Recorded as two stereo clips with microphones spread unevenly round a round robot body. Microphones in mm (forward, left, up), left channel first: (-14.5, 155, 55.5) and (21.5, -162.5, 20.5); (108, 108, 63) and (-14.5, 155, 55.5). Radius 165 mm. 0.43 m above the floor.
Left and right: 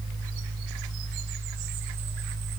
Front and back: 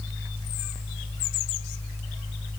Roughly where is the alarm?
No alarm in this recording.